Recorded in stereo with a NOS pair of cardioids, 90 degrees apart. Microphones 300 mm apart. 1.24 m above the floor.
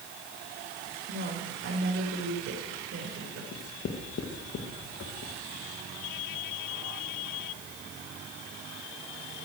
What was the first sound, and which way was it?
A woman speaking, 50° right.